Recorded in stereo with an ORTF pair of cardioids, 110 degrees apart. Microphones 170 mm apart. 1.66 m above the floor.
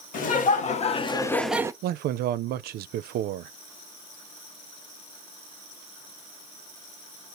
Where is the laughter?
55° left, 1.8 m; by 1.7 s 20° right, 0.7 m.